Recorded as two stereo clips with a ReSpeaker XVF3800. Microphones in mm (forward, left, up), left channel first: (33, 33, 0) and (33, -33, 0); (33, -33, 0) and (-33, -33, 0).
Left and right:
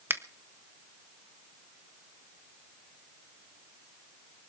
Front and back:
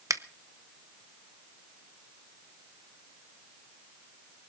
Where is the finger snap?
140° right, 0.9 m.